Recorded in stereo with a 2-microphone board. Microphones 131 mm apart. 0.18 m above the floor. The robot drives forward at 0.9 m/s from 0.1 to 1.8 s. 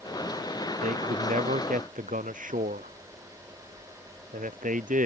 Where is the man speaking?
85° right.